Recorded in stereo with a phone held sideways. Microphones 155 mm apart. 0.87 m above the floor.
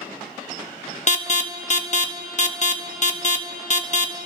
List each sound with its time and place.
1.1 s an alarm: 50° left (ahead or behind), 0.8 m